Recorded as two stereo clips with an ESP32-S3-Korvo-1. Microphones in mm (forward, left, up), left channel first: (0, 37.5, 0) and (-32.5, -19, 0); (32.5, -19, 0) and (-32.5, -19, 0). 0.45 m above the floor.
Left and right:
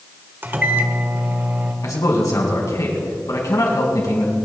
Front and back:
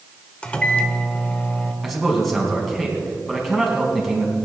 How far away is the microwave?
About 1.2 m.